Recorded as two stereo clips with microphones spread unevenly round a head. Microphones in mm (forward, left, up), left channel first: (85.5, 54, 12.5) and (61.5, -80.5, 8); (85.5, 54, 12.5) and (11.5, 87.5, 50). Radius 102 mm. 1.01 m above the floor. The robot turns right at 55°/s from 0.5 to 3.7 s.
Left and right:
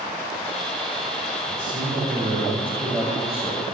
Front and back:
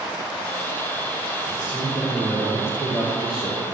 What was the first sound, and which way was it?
A man speaking, 120° right.